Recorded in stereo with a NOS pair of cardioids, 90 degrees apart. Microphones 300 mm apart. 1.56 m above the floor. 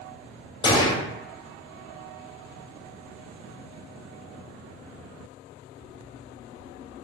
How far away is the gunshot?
About 0.5 m.